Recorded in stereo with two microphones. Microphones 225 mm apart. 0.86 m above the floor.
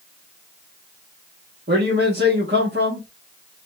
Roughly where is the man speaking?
Right.